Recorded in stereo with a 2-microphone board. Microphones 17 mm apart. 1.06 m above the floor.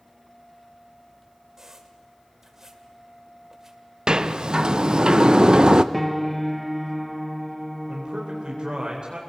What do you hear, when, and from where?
1.6 s a squeak: 25° right (ahead or behind), 1.7 m
4.1 s a sliding door: 50° right (ahead or behind), 0.7 m
5.9 s a piano: 5° left (ahead or behind), 0.7 m
7.9 s a man speaking: 55° right (ahead or behind), 3.5 m